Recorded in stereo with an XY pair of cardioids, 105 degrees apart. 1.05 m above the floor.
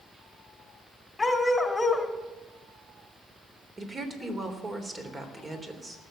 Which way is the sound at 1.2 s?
15° left.